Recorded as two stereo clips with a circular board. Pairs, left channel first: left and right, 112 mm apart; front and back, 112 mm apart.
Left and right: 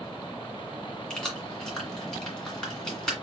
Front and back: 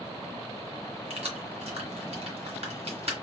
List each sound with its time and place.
1.1 s keys jangling: 175° left, 2.0 m